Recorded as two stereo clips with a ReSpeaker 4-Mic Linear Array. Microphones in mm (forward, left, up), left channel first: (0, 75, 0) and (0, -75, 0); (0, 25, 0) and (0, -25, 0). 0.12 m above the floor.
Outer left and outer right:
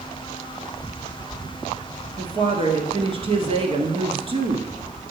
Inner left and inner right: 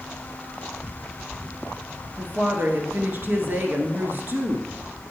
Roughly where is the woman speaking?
Right.